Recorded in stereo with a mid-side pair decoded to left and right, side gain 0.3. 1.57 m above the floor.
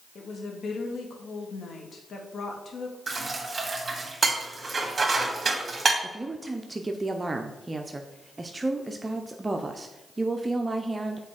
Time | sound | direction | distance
0.1 | a woman speaking | 70° left | 2.0 m
3.1 | dishes clattering | 45° right | 1.9 m
6.0 | a woman speaking | 30° right | 0.8 m